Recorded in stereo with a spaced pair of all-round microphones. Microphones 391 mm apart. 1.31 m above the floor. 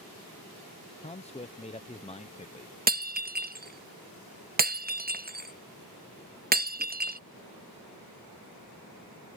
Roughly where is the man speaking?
Centre.